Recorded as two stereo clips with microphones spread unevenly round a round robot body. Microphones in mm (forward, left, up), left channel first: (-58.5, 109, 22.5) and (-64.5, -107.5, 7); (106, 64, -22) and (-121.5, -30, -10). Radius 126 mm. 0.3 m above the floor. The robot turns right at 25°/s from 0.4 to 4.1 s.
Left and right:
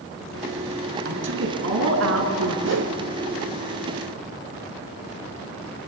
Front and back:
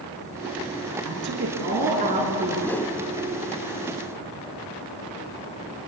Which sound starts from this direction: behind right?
A woman speaking, at 1.1 s.